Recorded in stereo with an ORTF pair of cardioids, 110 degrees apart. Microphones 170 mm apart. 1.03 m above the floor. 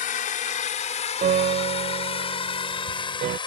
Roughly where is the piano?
Ahead right.